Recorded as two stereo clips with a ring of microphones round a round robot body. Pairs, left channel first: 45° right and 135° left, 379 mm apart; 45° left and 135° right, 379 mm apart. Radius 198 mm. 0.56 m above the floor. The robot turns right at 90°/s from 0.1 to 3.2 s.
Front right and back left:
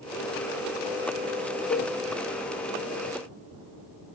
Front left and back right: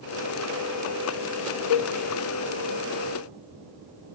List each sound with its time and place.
1.7 s a cowbell: 20° left, 0.6 m; by 1.9 s 45° left, 0.6 m